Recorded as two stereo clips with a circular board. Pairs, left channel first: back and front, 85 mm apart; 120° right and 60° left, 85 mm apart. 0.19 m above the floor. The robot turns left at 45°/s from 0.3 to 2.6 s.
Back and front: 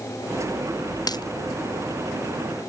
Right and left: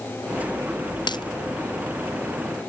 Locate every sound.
1.1 s a dropped coin: 145° right; by 1.2 s 150° right